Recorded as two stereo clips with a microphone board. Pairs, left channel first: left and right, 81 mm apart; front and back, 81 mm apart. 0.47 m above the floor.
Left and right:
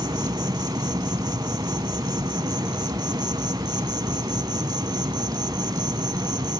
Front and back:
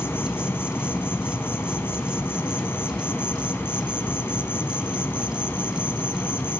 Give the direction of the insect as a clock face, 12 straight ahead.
2 o'clock.